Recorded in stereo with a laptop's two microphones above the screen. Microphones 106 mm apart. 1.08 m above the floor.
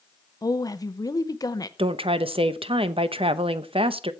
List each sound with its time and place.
0.4 s a woman speaking: 35° left (ahead or behind), 0.6 m
1.8 s a woman speaking: 60° right (ahead or behind), 0.7 m